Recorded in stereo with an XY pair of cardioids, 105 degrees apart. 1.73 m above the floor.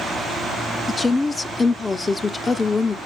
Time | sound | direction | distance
0.9 | a woman speaking | 25° left | 0.7 m